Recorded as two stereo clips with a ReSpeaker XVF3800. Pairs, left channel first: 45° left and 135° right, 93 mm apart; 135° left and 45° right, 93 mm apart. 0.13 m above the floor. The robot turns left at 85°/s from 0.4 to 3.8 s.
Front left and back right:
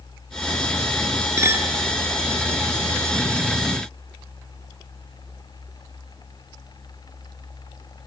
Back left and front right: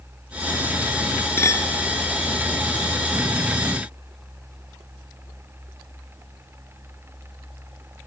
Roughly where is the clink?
Behind.